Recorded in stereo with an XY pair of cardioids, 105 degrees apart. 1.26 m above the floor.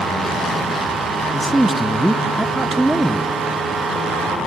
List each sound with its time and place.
1.3 s a man speaking: 5° right, 0.6 m